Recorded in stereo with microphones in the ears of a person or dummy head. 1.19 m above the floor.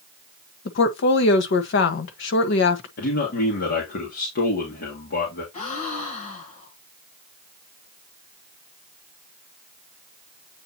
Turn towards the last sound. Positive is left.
turn(degrees=35)  # may be behind; listen again after turning